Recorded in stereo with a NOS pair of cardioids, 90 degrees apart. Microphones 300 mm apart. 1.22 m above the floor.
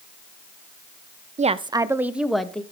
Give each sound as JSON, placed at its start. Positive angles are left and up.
{"t": 1.4, "sound": "a woman speaking", "azimuth_deg": -25, "distance_m": 0.7}